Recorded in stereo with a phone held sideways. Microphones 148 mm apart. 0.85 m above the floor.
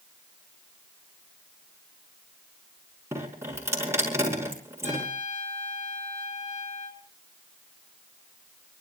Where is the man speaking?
I don't hear a man speaking.